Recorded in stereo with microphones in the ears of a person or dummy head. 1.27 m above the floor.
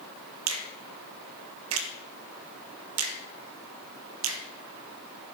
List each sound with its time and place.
0.5 s a finger snap: 70° right (ahead or behind), 1.8 m